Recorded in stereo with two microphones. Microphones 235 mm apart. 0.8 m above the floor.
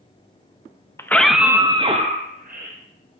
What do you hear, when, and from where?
1.0 s a scream: 10° left (ahead or behind), 0.6 m; by 2.8 s 40° right (ahead or behind), 0.9 m